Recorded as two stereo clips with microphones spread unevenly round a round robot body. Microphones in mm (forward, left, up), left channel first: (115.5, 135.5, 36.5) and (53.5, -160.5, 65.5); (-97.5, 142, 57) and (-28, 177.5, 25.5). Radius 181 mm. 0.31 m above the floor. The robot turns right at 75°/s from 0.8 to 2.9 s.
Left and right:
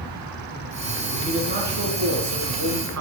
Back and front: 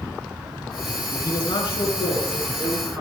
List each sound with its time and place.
1.1 s a man speaking: 155° left, 4.5 m; by 3.0 s 70° right, 4.5 m